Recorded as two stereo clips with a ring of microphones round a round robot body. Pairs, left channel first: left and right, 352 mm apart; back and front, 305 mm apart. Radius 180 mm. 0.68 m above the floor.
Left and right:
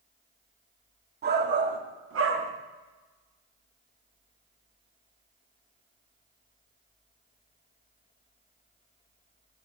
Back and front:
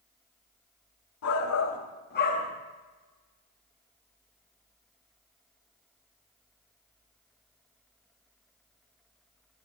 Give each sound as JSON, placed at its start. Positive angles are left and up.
{"t": 1.2, "sound": "a shout", "azimuth_deg": -150, "distance_m": 1.8}